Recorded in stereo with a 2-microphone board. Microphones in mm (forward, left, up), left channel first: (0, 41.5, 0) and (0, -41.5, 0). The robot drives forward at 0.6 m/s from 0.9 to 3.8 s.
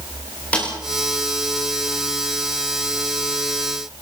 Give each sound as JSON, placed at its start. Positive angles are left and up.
{"t": 0.5, "sound": "a snare drum", "side_deg": 20, "distance_m": 8.5}